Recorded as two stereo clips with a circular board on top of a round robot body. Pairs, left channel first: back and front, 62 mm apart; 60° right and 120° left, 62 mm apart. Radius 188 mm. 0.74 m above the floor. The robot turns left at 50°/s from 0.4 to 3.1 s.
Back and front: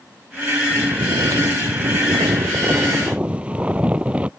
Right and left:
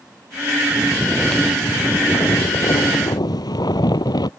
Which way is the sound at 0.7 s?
50° left.